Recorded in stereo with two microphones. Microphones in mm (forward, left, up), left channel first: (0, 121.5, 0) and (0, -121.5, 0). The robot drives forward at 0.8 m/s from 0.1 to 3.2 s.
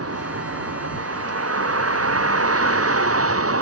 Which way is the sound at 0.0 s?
75° right (ahead or behind).